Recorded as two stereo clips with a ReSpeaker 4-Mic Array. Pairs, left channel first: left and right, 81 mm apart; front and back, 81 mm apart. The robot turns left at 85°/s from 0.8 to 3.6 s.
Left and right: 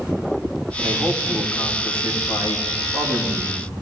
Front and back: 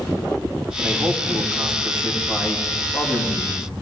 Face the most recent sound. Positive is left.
turn(degrees=-30)